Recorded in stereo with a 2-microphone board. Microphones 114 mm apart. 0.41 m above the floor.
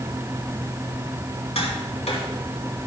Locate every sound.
1.6 s tapping: 70° left (ahead or behind), 3.5 m